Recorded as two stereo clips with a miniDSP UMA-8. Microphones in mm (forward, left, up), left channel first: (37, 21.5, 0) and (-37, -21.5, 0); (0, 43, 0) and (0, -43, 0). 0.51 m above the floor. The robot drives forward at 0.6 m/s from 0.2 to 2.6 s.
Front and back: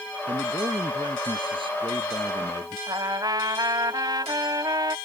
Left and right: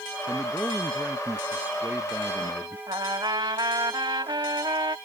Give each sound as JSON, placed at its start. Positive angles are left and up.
{"t": 0.3, "sound": "a man speaking", "azimuth_deg": -155}
{"t": 2.9, "sound": "a trumpet", "azimuth_deg": -115}